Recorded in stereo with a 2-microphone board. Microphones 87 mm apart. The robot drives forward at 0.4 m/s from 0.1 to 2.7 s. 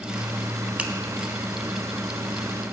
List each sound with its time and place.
0.8 s a finger snap: 15° right (ahead or behind), 1.0 m